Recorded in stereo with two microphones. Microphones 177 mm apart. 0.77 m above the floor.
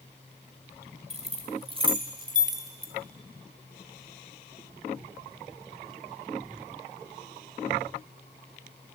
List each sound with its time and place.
1.1 s keys jangling: 35° right (ahead or behind), 2.5 m; by 2.9 s 15° right (ahead or behind), 2.0 m